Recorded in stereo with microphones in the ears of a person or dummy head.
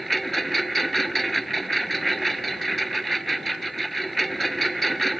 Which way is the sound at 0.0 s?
Centre (ahead or behind).